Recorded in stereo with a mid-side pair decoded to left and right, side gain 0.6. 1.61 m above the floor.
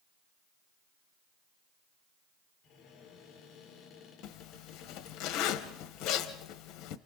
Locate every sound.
2.6 s a cupboard door: 55° left, 6.5 m
4.2 s a zipper: 60° left, 1.4 m